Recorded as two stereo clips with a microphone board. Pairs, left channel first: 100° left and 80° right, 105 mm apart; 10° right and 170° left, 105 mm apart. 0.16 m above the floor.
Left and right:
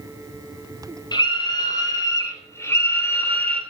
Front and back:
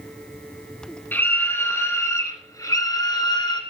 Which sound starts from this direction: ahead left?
A scream, at 1.1 s.